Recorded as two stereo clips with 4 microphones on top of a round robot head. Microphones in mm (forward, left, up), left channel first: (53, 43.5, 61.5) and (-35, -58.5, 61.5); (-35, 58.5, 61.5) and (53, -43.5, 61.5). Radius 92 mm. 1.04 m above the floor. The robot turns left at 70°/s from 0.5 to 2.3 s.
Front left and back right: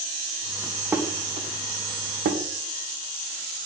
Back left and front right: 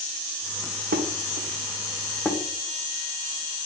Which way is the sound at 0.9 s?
50° right.